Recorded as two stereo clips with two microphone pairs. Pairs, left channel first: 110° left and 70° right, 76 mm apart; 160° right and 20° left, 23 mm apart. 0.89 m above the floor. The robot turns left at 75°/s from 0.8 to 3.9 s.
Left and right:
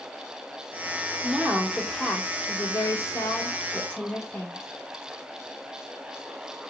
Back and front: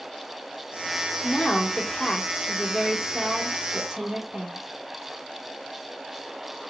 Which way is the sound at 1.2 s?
120° right.